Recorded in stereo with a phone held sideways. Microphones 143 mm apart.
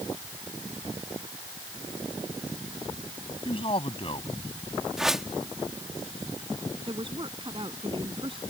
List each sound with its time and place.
3.5 s a man speaking: 40° left (ahead or behind)
5.0 s a whoosh: 5° right (ahead or behind)
6.9 s a woman speaking: 35° right (ahead or behind)